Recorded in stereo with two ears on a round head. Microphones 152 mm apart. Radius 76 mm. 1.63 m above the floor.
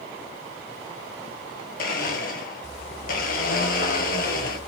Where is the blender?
50° left (ahead or behind), 1.7 m.